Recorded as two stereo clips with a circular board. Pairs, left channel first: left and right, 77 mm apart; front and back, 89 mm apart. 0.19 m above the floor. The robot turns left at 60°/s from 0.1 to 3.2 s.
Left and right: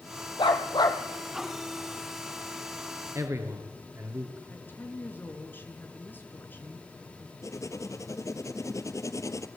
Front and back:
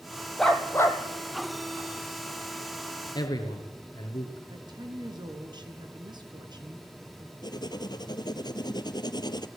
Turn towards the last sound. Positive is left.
turn(degrees=40)